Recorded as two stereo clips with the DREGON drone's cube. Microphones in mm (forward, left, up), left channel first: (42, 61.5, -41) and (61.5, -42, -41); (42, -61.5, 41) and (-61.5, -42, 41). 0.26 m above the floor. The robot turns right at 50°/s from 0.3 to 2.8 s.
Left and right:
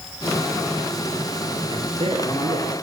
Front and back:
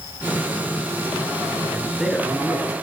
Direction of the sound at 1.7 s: 125° right.